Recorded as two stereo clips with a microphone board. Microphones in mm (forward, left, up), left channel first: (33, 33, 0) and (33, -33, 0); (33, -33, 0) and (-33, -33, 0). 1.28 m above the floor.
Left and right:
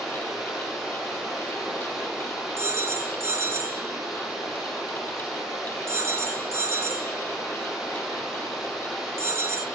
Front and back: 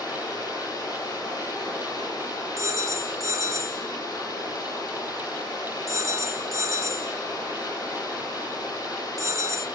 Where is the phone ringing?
140° right, 1.1 m.